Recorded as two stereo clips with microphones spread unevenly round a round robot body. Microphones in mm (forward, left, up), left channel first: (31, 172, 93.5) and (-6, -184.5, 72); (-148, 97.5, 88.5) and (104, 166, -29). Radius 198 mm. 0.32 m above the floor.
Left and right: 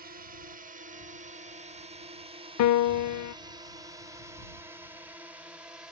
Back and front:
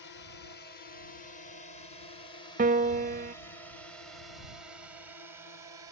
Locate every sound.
0.0 s a drone: 105° right; by 5.9 s 15° right
2.6 s a piano: 45° left